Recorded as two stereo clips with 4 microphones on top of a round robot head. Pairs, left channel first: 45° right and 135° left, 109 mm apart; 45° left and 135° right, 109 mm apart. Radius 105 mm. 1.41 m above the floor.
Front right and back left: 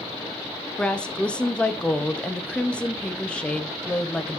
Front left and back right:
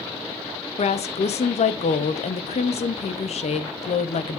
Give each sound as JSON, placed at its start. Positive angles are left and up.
{"t": 0.8, "sound": "a woman speaking", "azimuth_deg": 35, "distance_m": 0.6}